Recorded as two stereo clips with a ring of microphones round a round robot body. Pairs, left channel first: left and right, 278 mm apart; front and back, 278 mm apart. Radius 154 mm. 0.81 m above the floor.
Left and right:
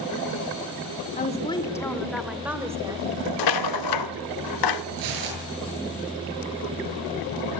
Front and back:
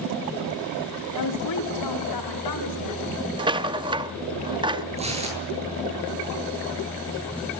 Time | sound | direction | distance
1.2 | a woman speaking | 25° left | 2 m
3.4 | a rattle | 105° left | 0.6 m
5.0 | tearing paper | 110° right | 8.5 m